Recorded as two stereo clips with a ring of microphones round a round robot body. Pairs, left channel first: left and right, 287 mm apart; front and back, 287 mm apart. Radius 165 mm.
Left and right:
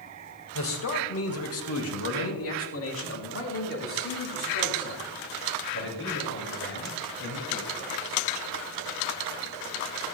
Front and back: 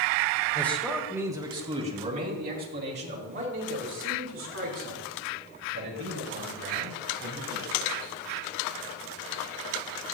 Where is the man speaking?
80° left, 1.7 m; by 8.2 s 140° left, 7.5 m.